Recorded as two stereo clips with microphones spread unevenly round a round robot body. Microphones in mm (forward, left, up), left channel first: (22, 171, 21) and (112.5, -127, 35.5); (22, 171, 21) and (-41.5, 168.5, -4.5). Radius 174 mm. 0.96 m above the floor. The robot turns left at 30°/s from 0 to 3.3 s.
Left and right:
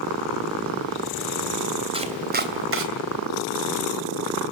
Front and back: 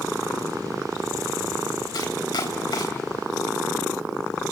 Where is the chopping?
Straight ahead, 3 m; by 2.9 s 30° right, 3 m.